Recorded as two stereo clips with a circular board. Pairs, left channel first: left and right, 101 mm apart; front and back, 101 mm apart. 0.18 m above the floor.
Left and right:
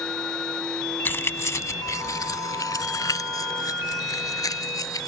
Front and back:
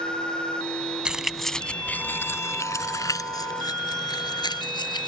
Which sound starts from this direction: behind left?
Keys jangling, at 1.1 s.